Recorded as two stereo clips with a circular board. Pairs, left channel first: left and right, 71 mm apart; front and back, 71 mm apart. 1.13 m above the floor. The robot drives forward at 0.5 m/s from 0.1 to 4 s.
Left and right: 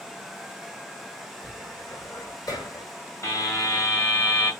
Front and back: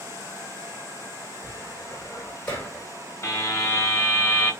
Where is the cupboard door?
50° left, 3 m; by 2.9 s 65° left, 2.5 m.